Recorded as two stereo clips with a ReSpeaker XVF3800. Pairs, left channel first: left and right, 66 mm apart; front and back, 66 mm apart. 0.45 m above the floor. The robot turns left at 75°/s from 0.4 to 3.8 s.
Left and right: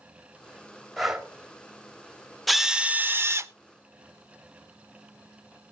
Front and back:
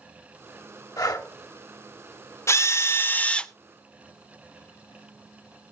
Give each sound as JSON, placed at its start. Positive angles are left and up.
{"t": 1.0, "sound": "breathing", "azimuth_deg": 5, "distance_m": 1.9}
{"t": 2.5, "sound": "a drill", "azimuth_deg": 0, "distance_m": 0.7}